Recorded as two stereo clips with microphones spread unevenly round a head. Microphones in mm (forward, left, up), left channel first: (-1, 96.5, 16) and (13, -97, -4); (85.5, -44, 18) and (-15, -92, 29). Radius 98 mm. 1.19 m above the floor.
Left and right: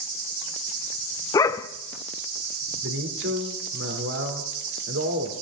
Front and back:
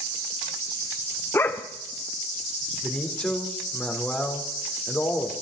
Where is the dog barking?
90° left, 0.5 m.